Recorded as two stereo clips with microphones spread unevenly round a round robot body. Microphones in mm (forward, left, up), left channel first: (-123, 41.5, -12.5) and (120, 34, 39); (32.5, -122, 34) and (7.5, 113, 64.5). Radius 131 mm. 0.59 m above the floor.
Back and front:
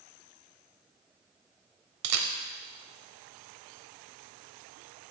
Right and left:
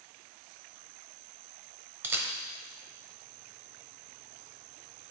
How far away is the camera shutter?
About 0.9 m.